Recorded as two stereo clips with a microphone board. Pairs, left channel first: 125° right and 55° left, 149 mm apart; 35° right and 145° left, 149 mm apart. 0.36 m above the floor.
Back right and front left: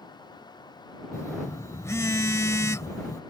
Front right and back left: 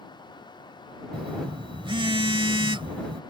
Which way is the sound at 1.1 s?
175° left.